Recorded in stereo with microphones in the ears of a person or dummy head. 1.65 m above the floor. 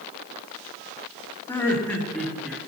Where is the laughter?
10° left (ahead or behind), 2.5 m; by 2.6 s centre (ahead or behind), 2.5 m.